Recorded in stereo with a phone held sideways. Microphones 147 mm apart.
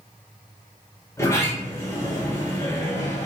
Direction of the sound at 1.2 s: 20° left (ahead or behind).